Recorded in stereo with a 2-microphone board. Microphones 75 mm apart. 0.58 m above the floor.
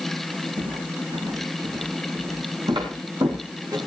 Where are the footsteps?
85° right, 9 m; by 3.9 s 65° right (ahead or behind), 8.5 m.